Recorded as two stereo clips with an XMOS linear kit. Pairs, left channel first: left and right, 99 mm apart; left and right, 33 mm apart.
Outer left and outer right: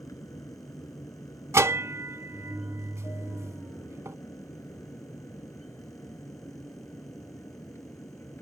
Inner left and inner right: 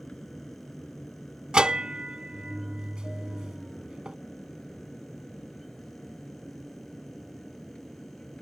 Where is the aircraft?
35° left (ahead or behind); by 8.4 s 25° left (ahead or behind).